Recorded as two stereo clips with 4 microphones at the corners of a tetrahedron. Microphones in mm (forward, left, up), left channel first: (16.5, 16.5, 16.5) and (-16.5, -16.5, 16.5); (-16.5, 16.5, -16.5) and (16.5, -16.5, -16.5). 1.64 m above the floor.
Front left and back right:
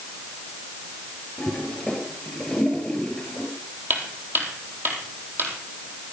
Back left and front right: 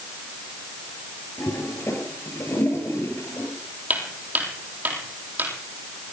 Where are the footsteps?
95° right, 3 m.